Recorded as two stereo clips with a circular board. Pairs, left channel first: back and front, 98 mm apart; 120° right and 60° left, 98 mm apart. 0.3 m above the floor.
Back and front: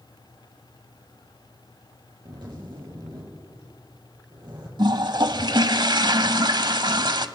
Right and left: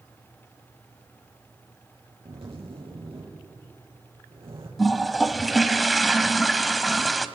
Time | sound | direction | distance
2.2 | a zipper | 40° left | 5.5 m
4.8 | a toilet flushing | 30° right | 0.8 m